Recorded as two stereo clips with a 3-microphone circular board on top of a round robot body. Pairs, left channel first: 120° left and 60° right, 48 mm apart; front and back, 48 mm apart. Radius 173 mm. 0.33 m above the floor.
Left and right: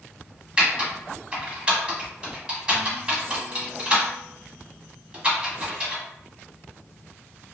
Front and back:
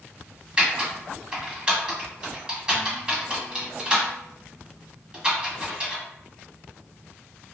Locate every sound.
0.6 s typing on a keyboard: 120° right, 1.9 m